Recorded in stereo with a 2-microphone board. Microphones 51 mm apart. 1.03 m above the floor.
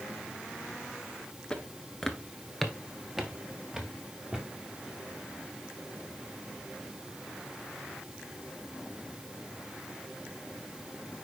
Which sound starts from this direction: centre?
Footsteps, at 1.5 s.